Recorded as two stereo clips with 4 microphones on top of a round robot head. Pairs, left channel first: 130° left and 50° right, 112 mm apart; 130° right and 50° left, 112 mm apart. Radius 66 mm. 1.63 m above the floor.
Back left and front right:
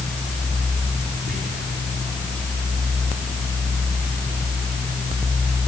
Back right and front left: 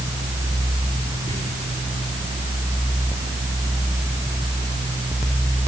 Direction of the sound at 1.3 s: 65° right.